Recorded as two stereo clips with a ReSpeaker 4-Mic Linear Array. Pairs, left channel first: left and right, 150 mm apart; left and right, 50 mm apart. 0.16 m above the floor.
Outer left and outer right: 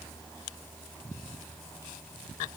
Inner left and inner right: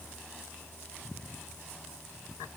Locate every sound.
Only background noise.